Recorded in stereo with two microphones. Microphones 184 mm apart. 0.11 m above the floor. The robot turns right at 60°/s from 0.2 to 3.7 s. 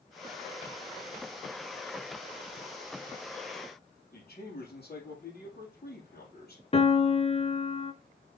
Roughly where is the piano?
Left.